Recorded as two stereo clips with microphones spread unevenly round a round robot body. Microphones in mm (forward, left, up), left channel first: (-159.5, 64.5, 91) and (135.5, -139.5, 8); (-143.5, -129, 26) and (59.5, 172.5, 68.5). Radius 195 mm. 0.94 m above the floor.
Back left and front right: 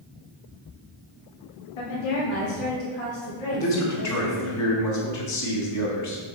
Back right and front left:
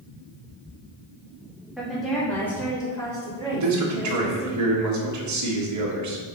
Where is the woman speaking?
145° left, 1.6 m; by 4.5 s 160° left, 3 m.